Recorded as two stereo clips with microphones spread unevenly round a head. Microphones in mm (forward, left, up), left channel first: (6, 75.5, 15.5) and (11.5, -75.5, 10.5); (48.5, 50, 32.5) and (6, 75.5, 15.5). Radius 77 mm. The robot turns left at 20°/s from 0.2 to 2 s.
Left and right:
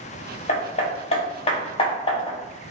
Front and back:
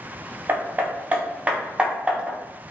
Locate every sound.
0.5 s hammering: 90° left, 0.5 m; by 2.4 s 60° left, 0.5 m